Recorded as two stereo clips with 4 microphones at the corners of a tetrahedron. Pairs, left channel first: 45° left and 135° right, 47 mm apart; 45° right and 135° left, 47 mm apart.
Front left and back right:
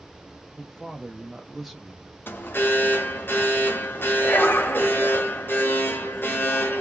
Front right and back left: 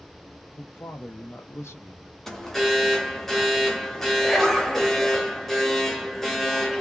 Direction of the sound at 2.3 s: 35° left.